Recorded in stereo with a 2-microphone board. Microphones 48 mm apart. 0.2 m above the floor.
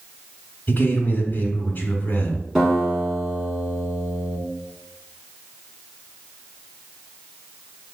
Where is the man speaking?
30° left (ahead or behind), 1.6 m.